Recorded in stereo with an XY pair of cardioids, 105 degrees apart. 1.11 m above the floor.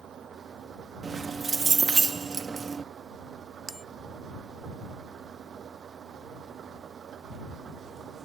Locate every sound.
0.0 s an engine running: 55° right
1.0 s keys jangling: 35° right
3.7 s a bell: 15° right